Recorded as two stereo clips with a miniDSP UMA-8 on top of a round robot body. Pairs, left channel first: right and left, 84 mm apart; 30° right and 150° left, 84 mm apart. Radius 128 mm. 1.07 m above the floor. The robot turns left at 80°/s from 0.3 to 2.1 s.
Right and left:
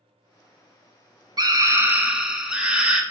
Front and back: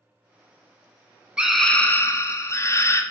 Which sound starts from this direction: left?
A scream, at 1.4 s.